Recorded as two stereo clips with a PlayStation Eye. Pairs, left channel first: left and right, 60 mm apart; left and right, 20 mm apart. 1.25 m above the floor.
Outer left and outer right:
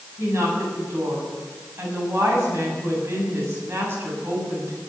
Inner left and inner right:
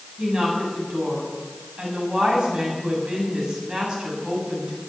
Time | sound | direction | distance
0.2 | a woman speaking | 40° right (ahead or behind) | 7 m